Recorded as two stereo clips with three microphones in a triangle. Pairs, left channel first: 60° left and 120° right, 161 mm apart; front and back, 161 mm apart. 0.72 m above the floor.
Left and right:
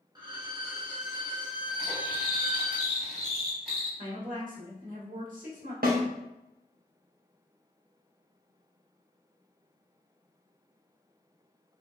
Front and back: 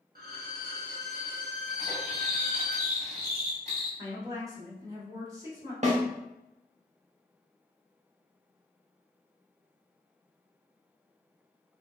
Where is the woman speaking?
115° right, 1.3 m.